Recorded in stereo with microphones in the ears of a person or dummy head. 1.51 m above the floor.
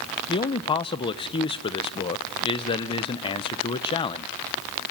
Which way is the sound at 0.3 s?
25° left (ahead or behind).